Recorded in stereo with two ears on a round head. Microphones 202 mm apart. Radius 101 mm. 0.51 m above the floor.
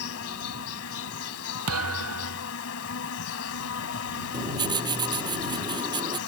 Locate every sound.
0.0 s an insect: 70° left (ahead or behind)
1.7 s a thud: 75° right (ahead or behind)
4.3 s writing: 20° right (ahead or behind)